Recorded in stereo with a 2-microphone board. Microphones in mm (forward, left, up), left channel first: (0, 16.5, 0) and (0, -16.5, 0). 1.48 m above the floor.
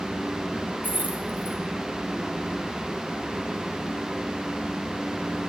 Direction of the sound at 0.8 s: 70° right (ahead or behind).